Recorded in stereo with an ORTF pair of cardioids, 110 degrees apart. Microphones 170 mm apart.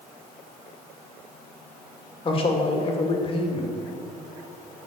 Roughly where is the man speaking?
Ahead left.